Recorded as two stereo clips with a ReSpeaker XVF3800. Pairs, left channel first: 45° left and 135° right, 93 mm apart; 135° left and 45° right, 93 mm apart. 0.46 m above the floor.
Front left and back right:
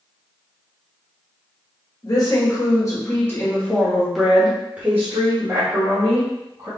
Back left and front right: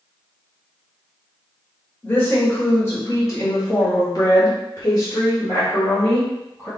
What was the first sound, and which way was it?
A woman speaking, 70° left.